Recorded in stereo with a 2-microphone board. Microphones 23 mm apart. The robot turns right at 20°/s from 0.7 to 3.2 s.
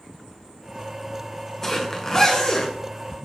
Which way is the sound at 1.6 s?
10° left (ahead or behind).